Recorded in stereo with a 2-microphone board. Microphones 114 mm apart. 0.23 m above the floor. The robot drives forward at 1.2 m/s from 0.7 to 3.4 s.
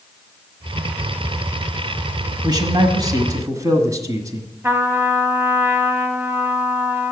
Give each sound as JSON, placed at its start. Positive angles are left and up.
{"t": 2.4, "sound": "a man speaking", "side_deg": -40, "distance_m": 1.3}
{"t": 4.6, "sound": "a trumpet", "side_deg": -20, "distance_m": 1.0}